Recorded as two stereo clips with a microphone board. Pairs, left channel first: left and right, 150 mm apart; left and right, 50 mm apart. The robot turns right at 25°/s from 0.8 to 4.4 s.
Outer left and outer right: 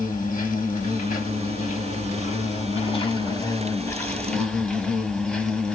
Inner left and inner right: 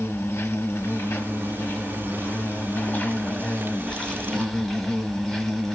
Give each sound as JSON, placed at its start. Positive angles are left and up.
{"t": 0.0, "sound": "an insect", "azimuth_deg": 85, "distance_m": 1.0}